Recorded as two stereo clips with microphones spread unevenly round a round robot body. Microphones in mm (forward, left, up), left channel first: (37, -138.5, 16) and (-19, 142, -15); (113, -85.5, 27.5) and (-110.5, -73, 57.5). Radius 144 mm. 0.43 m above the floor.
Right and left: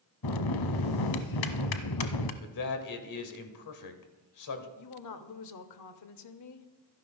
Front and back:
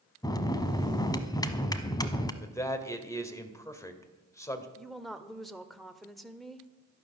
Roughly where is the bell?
Right.